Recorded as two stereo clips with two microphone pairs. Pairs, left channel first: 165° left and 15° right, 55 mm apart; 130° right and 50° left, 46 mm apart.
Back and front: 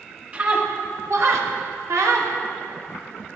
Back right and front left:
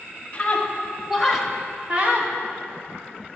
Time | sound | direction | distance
0.3 | a scream | 75° right | 1.9 m